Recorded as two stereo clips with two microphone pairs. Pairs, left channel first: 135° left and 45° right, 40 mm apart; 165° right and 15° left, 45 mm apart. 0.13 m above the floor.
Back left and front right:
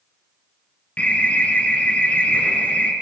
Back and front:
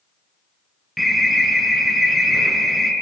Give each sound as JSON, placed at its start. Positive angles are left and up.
{"t": 1.0, "sound": "an alarm", "azimuth_deg": 110, "distance_m": 2.5}